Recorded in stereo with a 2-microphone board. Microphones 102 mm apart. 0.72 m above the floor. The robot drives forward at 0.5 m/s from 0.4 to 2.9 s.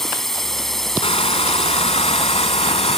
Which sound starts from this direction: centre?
A drone, at 0.0 s.